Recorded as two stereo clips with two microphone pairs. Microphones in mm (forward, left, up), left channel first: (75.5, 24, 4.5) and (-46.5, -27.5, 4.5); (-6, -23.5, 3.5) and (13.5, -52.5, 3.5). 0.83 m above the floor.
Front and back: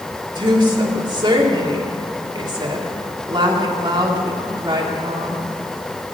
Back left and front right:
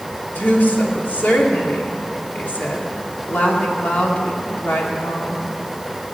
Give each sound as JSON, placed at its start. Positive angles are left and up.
{"t": 0.3, "sound": "a woman speaking", "azimuth_deg": 150, "distance_m": 2.0}